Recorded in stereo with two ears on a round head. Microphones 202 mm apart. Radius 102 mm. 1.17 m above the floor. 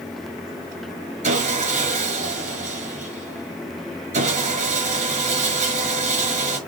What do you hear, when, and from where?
1.2 s sawing: 35° right (ahead or behind), 5.5 m